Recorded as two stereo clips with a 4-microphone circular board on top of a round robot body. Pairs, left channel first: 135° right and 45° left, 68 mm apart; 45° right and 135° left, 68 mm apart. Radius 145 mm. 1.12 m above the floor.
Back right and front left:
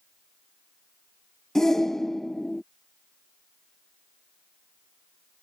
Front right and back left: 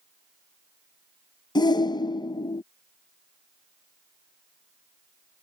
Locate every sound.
1.6 s a shout: 50° right